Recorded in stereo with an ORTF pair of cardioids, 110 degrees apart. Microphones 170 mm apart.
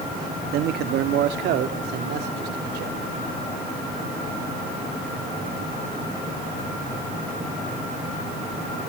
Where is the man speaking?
70° right, 1.7 m; by 3.1 s 75° right, 4 m.